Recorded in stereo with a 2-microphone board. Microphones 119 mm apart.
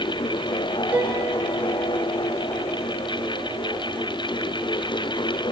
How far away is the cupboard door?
No cupboard door in this recording.